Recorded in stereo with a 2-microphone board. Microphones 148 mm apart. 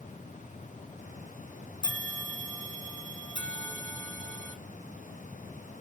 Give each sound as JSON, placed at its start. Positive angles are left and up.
{"t": 1.8, "sound": "a bell", "side_deg": 35, "distance_m": 1.4}